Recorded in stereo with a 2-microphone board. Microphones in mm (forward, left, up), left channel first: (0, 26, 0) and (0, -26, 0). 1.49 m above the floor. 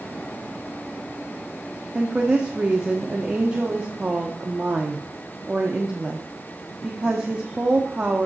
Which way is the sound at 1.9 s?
25° right (ahead or behind).